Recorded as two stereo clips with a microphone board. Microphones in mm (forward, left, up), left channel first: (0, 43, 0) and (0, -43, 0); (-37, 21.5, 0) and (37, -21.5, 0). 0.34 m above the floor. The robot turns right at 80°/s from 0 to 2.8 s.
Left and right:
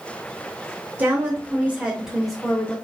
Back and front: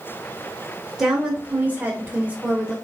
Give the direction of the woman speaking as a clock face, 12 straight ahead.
3 o'clock.